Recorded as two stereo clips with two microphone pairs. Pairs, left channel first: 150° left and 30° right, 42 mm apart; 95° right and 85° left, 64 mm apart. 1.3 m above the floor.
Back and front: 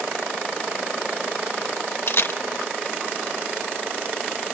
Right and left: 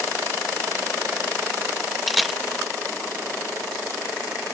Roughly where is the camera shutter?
Behind.